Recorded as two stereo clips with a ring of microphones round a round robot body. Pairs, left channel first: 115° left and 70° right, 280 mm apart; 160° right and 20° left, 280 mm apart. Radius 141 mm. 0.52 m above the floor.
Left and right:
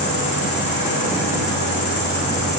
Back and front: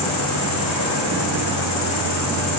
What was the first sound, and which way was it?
An insect, 175° left.